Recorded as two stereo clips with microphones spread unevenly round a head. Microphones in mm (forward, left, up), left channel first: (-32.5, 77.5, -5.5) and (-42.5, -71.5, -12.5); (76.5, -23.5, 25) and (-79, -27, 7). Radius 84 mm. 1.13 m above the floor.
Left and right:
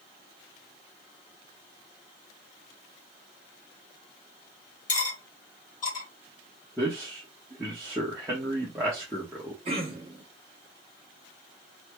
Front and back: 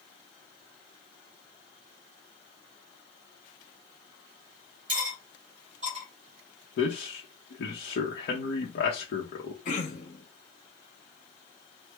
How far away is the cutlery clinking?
About 1.5 m.